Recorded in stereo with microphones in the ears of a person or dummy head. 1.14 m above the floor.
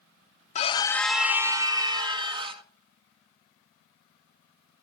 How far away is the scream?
About 0.5 m.